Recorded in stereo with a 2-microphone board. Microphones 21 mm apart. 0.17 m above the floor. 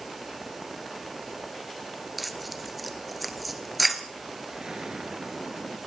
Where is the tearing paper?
5° right (ahead or behind), 1.6 m.